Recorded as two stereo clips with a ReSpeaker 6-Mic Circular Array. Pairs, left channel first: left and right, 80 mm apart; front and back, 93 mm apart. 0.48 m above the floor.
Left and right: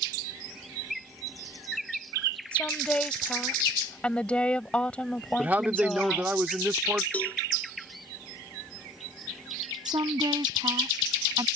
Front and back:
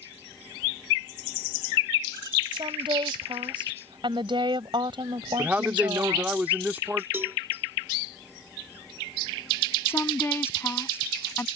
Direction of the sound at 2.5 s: 165° left.